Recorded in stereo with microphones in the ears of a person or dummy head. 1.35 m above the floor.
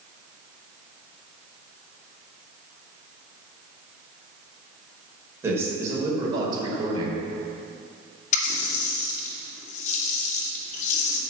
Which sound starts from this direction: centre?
A man speaking, at 5.4 s.